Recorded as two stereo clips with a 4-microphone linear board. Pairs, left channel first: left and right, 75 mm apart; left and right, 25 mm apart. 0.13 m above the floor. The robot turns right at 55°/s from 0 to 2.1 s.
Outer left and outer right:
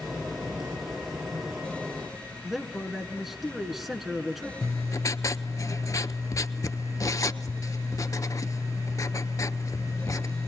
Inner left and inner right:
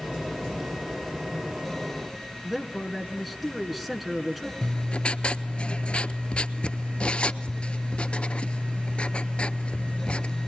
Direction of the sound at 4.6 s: 45° left (ahead or behind).